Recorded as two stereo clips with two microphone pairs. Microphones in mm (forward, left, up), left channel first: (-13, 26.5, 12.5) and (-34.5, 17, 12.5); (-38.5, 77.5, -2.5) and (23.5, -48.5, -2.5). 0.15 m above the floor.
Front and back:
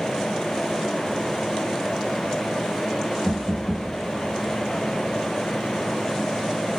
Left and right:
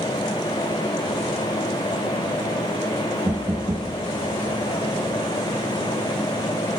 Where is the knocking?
80° right, 0.8 m.